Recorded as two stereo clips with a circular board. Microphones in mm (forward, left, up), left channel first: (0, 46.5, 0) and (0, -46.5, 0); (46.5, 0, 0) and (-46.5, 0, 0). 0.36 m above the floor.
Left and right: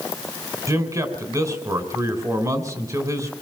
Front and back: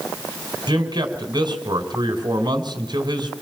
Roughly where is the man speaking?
Behind right.